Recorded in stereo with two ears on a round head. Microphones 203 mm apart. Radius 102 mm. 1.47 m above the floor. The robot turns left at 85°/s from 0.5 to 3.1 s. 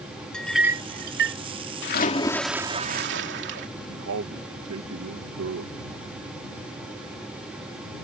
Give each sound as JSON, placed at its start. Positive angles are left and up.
{"t": 0.3, "sound": "a clink", "side_deg": 5}
{"t": 1.8, "sound": "a splash", "azimuth_deg": 55}
{"t": 3.9, "sound": "a man speaking", "side_deg": -60}